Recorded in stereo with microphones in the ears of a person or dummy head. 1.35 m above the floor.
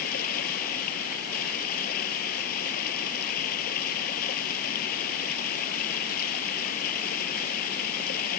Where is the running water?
55° left (ahead or behind).